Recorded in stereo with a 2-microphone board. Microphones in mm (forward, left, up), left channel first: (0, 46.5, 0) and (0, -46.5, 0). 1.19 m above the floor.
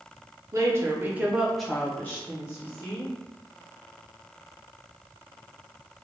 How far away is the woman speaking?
About 0.7 m.